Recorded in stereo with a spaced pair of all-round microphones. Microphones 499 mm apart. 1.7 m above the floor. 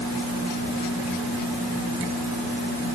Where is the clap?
No clap in this recording.